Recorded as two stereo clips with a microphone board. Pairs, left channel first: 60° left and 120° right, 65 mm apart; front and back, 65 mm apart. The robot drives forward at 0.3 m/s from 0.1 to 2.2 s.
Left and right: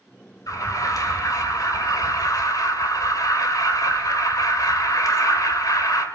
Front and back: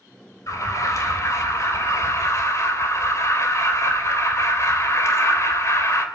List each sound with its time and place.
0.5 s an alarm: 30° left, 3.5 m; by 6.0 s 40° left, 3 m